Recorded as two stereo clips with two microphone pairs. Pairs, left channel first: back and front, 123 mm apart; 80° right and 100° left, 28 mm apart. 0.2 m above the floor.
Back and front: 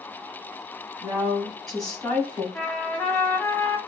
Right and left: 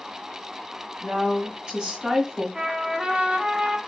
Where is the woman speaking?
80° left, 2.0 m; by 2.5 s 140° left, 1.4 m.